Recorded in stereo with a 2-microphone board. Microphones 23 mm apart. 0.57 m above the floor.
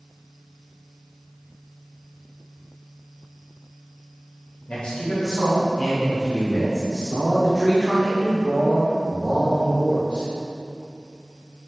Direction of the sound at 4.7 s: 55° left (ahead or behind).